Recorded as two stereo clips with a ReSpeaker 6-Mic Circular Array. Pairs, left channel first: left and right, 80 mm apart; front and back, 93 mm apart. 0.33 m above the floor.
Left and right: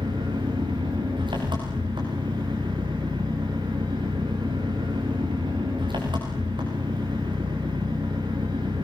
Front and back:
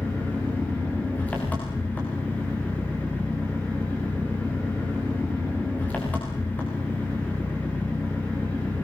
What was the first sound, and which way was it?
An engine running, 75° right.